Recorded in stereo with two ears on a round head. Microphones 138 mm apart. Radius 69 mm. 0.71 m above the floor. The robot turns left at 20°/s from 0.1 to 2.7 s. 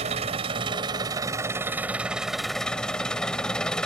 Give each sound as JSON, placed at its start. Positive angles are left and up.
{"t": 0.0, "sound": "an engine running", "azimuth_deg": -135}